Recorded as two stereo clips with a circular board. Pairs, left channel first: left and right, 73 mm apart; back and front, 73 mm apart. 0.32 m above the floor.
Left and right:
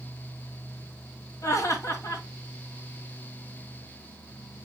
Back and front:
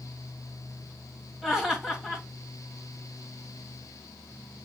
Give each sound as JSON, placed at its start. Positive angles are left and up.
{"t": 1.4, "sound": "laughter", "azimuth_deg": 80, "distance_m": 1.9}